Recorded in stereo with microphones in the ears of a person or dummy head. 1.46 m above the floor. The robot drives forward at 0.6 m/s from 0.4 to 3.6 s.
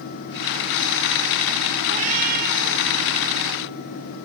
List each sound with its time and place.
1.9 s a cat meowing: 40° right (ahead or behind), 2 m; by 2.9 s 50° right (ahead or behind), 1.7 m